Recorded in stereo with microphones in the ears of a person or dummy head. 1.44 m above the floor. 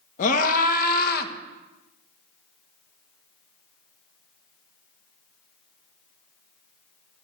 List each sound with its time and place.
0.2 s a scream: 45° left (ahead or behind), 1.8 m; by 1.3 s 60° left (ahead or behind), 1.3 m